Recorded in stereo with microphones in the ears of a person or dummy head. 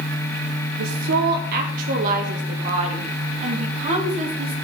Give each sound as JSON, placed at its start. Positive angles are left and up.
{"t": 0.8, "sound": "a woman speaking", "side_deg": -70, "distance_m": 1.0}